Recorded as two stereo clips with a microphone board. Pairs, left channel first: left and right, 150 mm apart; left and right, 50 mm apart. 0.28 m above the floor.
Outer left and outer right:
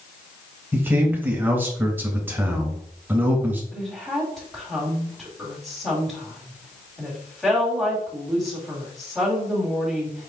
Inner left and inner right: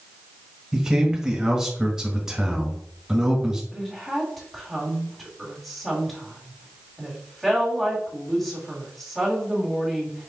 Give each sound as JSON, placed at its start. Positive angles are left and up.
{"t": 0.7, "sound": "a man speaking", "side_deg": -15, "distance_m": 1.0}
{"t": 3.7, "sound": "a woman speaking", "side_deg": 0, "distance_m": 1.6}